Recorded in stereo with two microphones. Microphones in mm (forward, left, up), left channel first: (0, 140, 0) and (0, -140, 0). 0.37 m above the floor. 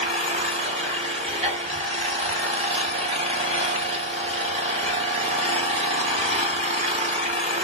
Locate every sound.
0.0 s an engine running: 25° right (ahead or behind), 0.8 m